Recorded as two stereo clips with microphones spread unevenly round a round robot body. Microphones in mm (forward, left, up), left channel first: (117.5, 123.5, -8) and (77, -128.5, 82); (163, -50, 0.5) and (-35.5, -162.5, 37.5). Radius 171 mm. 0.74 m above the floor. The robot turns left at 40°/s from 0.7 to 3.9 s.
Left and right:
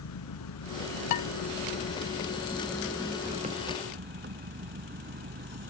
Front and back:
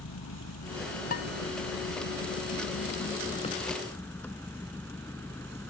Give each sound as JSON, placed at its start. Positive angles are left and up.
{"t": 0.0, "sound": "an engine running", "azimuth_deg": 75}
{"t": 1.1, "sound": "dishes clattering", "azimuth_deg": 100}